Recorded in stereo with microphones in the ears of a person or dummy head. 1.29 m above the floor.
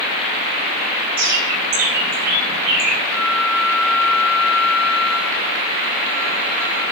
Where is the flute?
60° right (ahead or behind), 1.3 m.